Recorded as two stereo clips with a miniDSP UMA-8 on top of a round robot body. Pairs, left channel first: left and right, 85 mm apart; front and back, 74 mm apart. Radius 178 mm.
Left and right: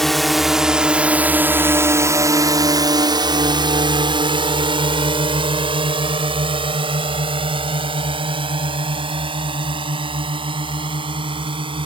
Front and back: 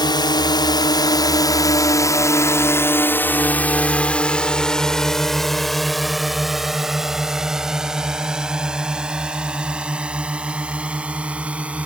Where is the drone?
5° left; by 11.9 s 105° right.